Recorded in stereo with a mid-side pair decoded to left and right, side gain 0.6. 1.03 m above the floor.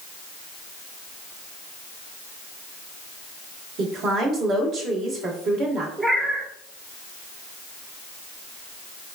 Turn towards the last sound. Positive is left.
turn(degrees=-15)